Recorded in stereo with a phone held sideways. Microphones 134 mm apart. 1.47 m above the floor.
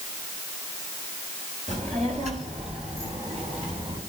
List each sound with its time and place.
1.7 s a child speaking: 60° right (ahead or behind), 4.5 m; by 4.0 s 45° right (ahead or behind), 7 m